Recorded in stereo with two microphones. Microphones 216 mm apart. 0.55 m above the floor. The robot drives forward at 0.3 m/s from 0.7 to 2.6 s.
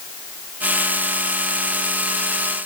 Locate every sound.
Only background noise.